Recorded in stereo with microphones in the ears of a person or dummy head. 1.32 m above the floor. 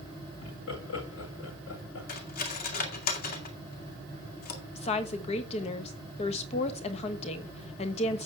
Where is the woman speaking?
35° left (ahead or behind), 1.1 m.